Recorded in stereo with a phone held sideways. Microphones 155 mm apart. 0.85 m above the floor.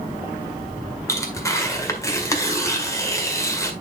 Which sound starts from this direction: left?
Tearing paper, at 1.1 s.